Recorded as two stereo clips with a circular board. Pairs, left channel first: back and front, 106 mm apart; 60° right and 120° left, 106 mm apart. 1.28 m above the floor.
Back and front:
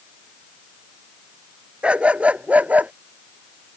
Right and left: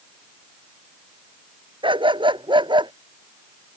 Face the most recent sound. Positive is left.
turn(degrees=75)